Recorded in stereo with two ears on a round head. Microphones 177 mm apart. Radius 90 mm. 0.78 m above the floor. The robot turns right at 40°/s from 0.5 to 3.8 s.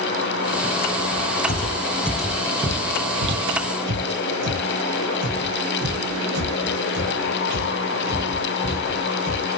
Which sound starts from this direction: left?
Footsteps, at 1.5 s.